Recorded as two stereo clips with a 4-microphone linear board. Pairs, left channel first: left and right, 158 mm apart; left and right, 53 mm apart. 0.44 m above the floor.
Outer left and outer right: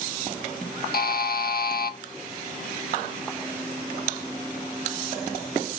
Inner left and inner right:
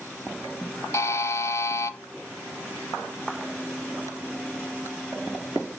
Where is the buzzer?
75° left (ahead or behind), 0.5 m.